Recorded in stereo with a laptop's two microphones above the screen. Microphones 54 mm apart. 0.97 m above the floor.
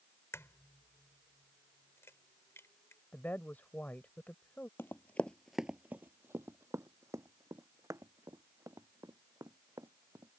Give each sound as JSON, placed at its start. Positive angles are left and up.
{"t": 0.3, "sound": "a crack", "side_deg": 60}
{"t": 3.1, "sound": "a woman speaking", "side_deg": 35}
{"t": 4.8, "sound": "running footsteps", "side_deg": 45}